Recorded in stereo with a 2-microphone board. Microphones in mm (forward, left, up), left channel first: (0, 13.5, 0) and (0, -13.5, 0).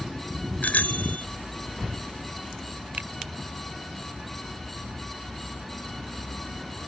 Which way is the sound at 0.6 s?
80° left.